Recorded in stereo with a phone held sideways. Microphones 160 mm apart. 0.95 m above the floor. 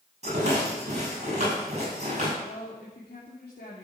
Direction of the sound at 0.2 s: 45° right (ahead or behind).